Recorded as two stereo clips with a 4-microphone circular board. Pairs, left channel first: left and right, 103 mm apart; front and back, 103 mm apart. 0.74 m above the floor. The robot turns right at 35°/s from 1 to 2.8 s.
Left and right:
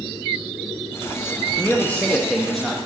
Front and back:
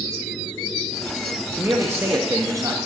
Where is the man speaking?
140° left, 0.8 m; by 2.8 s straight behind, 0.8 m.